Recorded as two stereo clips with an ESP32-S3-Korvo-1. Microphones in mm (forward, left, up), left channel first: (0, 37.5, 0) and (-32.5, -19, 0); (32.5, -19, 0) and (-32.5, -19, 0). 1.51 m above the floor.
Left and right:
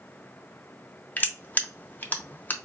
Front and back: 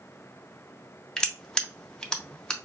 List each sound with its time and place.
1.2 s crushing: 60° left, 0.6 m